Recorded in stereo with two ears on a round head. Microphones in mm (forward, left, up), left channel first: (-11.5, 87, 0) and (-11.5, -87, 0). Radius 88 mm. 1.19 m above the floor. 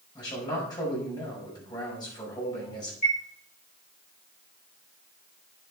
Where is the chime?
35° left (ahead or behind), 6 m.